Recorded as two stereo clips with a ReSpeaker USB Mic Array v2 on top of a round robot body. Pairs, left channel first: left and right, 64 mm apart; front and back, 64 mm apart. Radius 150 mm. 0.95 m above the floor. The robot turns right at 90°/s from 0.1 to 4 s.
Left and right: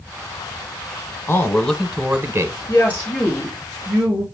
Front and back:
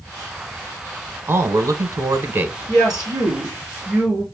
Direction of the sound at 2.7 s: 130° left.